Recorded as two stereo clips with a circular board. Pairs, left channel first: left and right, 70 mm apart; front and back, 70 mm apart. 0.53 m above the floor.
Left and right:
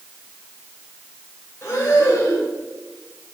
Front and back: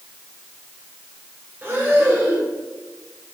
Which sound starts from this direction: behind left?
Breathing, at 1.6 s.